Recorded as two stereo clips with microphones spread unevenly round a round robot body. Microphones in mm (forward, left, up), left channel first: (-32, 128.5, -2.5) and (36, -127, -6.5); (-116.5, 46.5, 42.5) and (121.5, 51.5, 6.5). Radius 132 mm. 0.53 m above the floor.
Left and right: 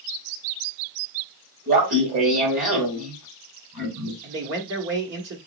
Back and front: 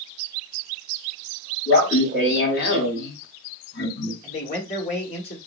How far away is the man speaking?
About 1.4 m.